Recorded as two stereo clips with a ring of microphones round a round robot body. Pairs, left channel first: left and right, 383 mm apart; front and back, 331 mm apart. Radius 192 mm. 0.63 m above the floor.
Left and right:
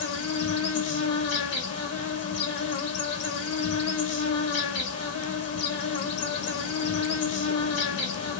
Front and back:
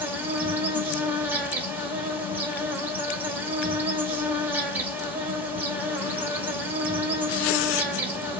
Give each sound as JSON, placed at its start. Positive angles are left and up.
{"t": 0.0, "sound": "an insect", "azimuth_deg": 100, "distance_m": 1.0}